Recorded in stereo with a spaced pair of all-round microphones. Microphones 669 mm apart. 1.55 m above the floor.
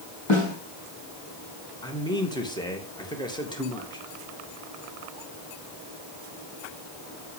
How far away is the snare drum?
About 5 m.